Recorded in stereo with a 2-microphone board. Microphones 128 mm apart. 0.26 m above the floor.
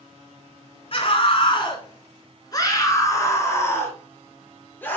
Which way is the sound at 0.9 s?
45° left (ahead or behind).